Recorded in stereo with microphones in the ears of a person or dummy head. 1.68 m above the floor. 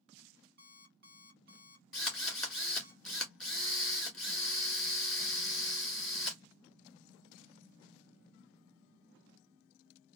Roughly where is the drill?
Centre.